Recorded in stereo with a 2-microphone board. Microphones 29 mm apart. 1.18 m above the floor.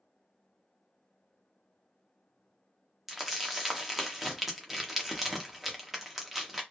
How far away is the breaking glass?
No breaking glass in this recording.